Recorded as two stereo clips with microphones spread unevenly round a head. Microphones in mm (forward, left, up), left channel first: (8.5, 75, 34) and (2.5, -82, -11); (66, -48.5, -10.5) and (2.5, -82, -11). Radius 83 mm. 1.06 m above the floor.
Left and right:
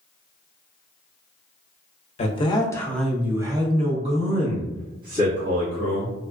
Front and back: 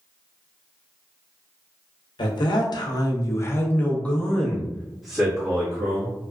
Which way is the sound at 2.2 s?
35° left.